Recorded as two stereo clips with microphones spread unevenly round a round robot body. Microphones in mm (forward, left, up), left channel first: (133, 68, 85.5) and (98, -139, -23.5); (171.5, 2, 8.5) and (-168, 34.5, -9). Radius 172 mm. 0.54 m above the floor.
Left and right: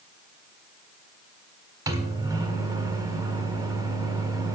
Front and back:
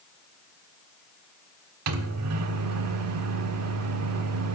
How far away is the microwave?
About 1.2 m.